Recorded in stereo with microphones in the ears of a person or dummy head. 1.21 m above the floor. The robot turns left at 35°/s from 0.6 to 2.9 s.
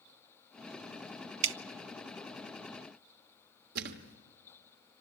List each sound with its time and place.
1.4 s dripping: 65° right (ahead or behind), 0.7 m; by 1.6 s 70° right (ahead or behind), 0.7 m
3.8 s a thud: 55° right (ahead or behind), 1.5 m